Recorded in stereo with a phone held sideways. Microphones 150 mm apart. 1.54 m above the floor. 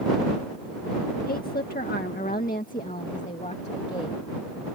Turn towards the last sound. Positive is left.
turn(degrees=40)  # may be behind; listen again after turning